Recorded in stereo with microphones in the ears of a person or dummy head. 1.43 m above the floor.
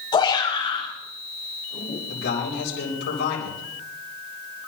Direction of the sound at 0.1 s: 30° left (ahead or behind).